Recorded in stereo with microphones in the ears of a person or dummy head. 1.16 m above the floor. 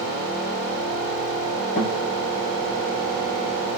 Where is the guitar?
35° left (ahead or behind), 0.8 m.